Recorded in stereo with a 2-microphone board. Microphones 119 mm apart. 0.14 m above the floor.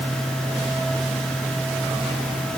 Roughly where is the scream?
I don't hear a scream.